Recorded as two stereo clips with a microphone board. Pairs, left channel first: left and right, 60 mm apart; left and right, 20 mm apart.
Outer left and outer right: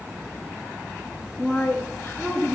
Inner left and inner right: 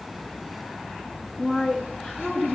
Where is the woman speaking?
20° left (ahead or behind), 1.1 m; by 2.6 s 35° left (ahead or behind), 1.8 m.